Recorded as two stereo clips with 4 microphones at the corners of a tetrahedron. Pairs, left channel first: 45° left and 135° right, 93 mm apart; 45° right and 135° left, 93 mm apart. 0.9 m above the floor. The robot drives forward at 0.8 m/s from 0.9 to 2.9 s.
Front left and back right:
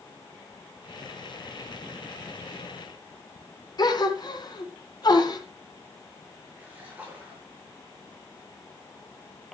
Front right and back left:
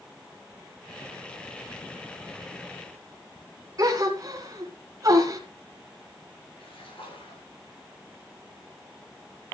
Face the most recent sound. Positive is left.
turn(degrees=-60)